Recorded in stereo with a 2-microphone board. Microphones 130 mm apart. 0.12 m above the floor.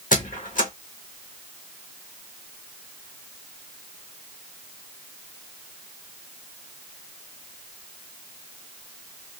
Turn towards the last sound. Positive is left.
turn(degrees=85)